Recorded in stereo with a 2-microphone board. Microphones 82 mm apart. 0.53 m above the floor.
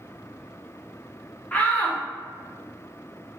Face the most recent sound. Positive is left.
turn(degrees=20)  # may be behind; listen again after turning